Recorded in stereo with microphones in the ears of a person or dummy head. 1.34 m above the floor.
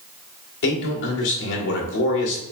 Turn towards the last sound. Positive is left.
turn(degrees=65)  # may be behind; listen again after turning